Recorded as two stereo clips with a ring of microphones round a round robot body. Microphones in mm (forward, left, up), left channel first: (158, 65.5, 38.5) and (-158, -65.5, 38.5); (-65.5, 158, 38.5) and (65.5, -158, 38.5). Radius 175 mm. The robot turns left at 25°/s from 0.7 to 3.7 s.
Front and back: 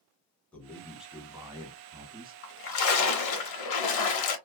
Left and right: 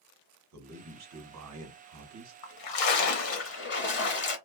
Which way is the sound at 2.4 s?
85° left.